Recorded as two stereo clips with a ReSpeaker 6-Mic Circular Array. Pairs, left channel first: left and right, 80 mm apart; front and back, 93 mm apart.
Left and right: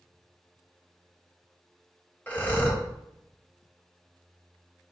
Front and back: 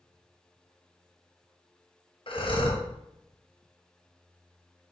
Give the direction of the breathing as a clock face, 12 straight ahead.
11 o'clock.